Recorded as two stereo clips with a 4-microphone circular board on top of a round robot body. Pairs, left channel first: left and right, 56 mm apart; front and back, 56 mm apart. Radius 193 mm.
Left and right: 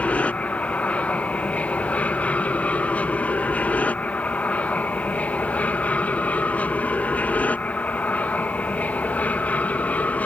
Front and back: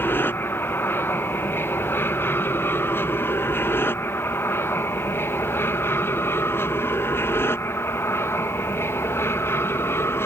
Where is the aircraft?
30° left.